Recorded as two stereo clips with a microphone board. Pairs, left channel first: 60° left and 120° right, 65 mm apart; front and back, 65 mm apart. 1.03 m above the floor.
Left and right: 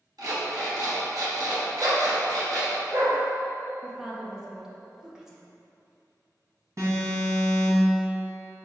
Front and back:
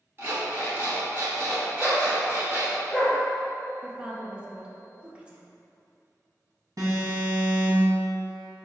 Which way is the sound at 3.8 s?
Straight behind.